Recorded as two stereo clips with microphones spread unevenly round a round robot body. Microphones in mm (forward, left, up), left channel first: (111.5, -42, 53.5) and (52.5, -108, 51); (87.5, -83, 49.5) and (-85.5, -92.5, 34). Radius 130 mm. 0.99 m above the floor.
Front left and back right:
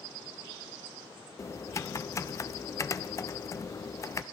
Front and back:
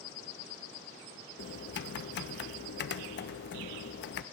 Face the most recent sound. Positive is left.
turn(degrees=-10)